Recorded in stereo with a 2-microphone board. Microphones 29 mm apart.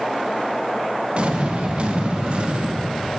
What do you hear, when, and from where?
1.1 s an explosion: 45° right (ahead or behind), 1.0 m